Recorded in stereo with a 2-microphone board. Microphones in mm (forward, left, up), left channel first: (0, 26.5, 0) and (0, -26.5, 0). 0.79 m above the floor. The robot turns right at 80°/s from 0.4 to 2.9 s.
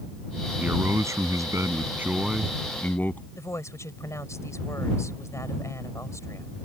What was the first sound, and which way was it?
A man speaking, 150° right.